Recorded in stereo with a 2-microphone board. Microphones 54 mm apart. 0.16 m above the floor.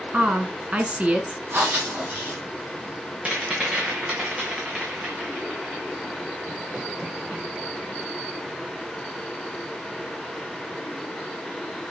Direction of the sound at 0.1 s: 25° right (ahead or behind).